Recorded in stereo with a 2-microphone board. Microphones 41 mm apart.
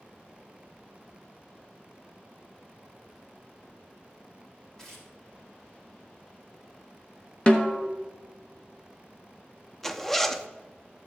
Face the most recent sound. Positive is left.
turn(degrees=5)  # may be behind; listen again after turning